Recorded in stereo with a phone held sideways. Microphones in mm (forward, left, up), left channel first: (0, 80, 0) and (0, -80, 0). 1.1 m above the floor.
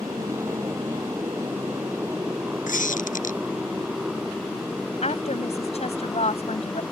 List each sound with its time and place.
0.0 s a motorcycle: 20° right (ahead or behind); by 6.9 s centre (ahead or behind)
2.7 s a squeak: 55° left (ahead or behind)
5.0 s a woman speaking: 40° left (ahead or behind)